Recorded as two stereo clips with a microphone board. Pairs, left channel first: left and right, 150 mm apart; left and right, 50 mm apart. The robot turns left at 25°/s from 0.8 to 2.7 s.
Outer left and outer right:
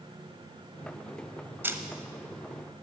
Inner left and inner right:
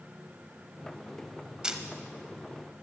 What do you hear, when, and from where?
1.6 s a camera shutter: 15° right (ahead or behind), 1.1 m; by 1.8 s 20° right (ahead or behind), 1.1 m